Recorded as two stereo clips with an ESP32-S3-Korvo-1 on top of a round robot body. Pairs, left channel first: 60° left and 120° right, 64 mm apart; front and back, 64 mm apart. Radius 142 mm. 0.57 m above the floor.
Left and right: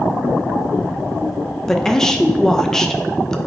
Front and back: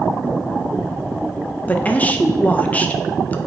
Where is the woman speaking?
10° right, 0.6 m.